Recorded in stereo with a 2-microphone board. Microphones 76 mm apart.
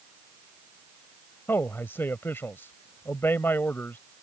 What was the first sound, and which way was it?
A man speaking, 30° left (ahead or behind).